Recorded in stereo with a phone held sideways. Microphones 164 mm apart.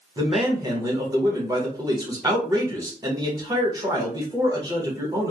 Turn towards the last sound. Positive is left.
turn(degrees=-25)  # may be behind; listen again after turning